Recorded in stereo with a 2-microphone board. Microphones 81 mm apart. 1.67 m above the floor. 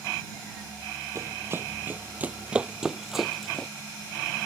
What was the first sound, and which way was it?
Running footsteps, 35° right (ahead or behind).